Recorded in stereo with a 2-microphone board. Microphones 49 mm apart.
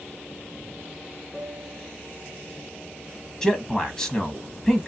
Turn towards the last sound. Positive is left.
turn(degrees=15)  # may be behind; listen again after turning